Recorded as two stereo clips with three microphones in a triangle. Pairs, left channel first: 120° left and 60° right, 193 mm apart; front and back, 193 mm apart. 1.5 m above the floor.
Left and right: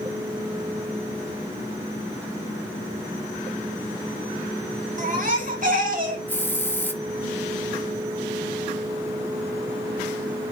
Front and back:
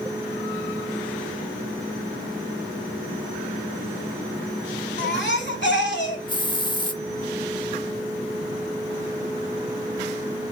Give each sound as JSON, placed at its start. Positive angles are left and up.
{"t": 5.0, "sound": "a baby crying", "azimuth_deg": -15, "distance_m": 2.5}
{"t": 6.3, "sound": "a hiss", "azimuth_deg": 50, "distance_m": 1.0}